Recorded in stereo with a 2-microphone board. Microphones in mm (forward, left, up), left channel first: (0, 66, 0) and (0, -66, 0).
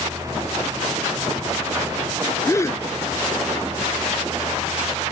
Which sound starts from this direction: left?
A gasp, at 2.5 s.